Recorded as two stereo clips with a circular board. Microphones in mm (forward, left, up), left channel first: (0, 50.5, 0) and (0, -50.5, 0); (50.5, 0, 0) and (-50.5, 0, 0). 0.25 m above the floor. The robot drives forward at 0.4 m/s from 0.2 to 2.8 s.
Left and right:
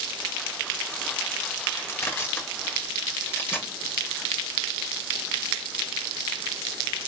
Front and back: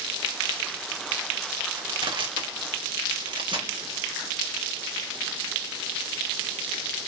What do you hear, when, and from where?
1.7 s crushing: 150° left, 2.5 m; by 3.7 s 155° left, 2.5 m